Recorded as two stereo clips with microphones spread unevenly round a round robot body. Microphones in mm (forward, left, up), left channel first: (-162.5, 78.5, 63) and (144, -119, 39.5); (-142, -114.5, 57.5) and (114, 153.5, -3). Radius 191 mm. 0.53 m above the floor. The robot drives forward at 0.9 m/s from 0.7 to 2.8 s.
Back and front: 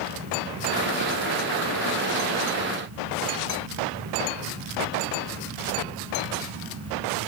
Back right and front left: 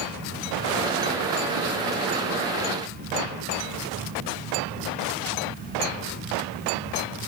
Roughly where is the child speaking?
No child speaking in this recording.